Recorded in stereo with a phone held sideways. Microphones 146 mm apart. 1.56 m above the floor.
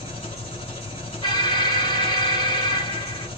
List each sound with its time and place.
0.0 s an engine running: 40° left (ahead or behind), 2 m
1.2 s an alarm: 35° left (ahead or behind), 1.2 m